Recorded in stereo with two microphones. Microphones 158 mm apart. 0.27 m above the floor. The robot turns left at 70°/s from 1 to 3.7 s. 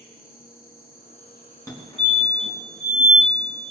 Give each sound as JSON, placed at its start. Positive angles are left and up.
{"t": 0.0, "sound": "an insect", "azimuth_deg": 105, "distance_m": 5.5}
{"t": 1.7, "sound": "a fire alarm", "side_deg": 20, "distance_m": 4.0}